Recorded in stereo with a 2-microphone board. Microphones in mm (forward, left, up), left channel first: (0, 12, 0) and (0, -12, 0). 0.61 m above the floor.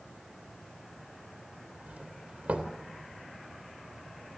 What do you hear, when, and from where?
1.9 s a doorbell: 65° right (ahead or behind), 3 m